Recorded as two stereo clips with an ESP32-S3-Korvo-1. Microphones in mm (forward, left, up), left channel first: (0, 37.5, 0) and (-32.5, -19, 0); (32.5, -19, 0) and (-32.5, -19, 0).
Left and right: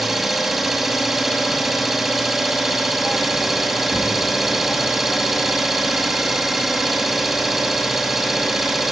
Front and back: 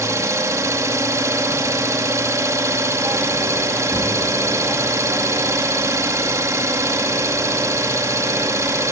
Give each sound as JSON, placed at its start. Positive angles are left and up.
{"t": 0.0, "sound": "an engine running", "azimuth_deg": 155, "distance_m": 2.5}